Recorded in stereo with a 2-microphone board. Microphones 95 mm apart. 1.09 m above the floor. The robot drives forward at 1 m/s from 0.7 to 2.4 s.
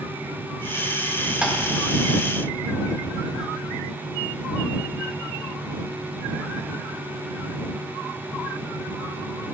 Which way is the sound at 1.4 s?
10° right (ahead or behind).